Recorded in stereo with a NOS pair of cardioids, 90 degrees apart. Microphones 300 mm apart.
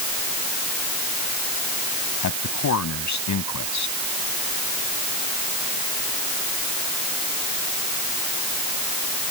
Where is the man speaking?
70° left.